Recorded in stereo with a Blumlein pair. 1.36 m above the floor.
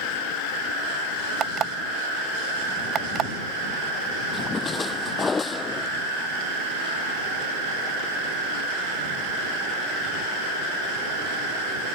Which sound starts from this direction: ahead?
A splash, at 4.3 s.